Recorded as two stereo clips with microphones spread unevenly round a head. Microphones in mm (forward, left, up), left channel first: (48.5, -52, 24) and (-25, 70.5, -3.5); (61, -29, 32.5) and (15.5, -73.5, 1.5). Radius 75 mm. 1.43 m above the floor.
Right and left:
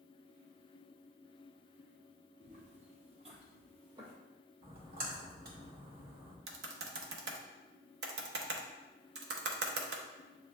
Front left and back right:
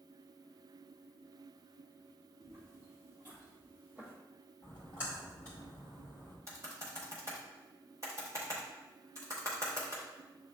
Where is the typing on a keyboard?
145° left, 0.7 m.